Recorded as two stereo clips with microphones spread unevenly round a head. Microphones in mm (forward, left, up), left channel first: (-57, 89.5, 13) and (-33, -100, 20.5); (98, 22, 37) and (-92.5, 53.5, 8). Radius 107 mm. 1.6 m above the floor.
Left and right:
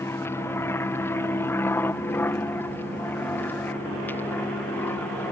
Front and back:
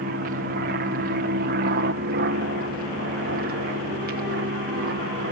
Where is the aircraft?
170° left; by 5.3 s 175° left.